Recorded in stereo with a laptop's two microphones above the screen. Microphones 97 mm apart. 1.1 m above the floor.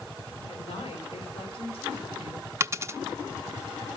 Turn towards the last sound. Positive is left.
turn(degrees=-30)  # may be behind; listen again after turning